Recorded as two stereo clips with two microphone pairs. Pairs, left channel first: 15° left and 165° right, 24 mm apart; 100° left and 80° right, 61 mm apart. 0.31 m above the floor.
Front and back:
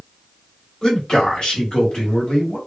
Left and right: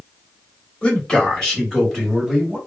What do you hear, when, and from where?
0.8 s a man speaking: 45° left, 1.4 m; by 2.6 s straight ahead, 1.7 m